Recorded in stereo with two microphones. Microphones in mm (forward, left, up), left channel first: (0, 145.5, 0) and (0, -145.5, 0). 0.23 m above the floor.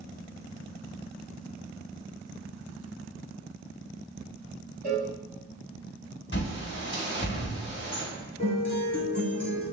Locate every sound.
4.8 s a cowbell: 35° right (ahead or behind), 1.3 m
6.3 s a bird: 40° left (ahead or behind), 1.3 m
8.4 s a guitar: 45° right (ahead or behind), 1.2 m